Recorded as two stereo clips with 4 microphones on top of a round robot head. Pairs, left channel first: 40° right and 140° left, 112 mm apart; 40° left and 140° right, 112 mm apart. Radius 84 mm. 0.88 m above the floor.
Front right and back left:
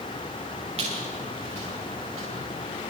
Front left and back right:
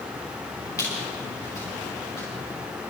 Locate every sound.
0.8 s a squeak: 105° left, 8.5 m